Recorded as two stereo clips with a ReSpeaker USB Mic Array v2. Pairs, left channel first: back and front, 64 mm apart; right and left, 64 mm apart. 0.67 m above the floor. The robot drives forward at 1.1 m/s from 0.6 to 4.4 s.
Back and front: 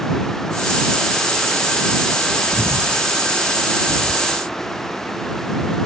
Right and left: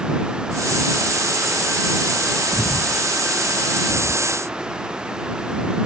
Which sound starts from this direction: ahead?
Breathing, at 2.5 s.